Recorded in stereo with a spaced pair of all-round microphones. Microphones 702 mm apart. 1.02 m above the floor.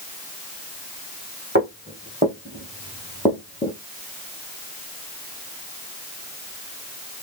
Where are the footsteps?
15° right (ahead or behind), 3 m; by 3.8 s 15° left (ahead or behind), 1.6 m.